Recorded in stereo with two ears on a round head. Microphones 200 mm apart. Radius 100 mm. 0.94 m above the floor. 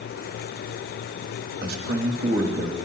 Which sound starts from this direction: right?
A man speaking, at 1.6 s.